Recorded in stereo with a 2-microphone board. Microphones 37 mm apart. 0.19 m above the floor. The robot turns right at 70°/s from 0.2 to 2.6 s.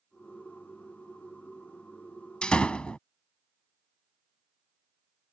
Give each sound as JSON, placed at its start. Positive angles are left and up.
{"t": 2.4, "sound": "a door slam", "side_deg": 25}